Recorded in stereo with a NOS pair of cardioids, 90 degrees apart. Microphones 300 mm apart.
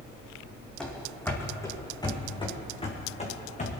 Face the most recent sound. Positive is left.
turn(degrees=25)